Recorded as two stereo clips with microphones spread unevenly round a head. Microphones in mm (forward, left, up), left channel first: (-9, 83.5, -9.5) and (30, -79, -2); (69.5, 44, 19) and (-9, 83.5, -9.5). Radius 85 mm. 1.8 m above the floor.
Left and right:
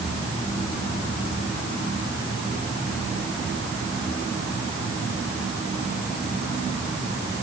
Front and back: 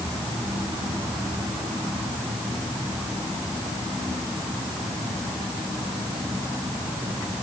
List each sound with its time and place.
Only background noise.